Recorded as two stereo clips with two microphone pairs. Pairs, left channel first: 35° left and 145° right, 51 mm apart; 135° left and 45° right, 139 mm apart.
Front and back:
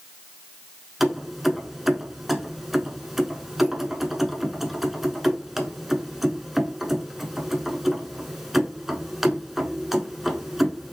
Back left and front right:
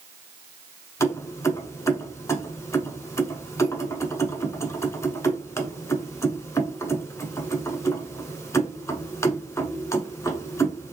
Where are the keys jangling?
135° left, 0.7 m.